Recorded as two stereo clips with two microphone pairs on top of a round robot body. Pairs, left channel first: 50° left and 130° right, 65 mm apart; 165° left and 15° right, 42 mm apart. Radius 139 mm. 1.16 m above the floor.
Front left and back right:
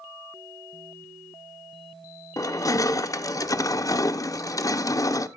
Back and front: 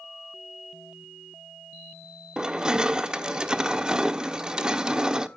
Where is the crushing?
55° left, 0.9 m.